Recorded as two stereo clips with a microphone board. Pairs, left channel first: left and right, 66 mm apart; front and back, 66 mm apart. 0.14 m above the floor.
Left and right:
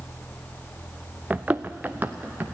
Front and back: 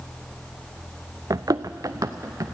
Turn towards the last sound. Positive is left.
turn(degrees=-150)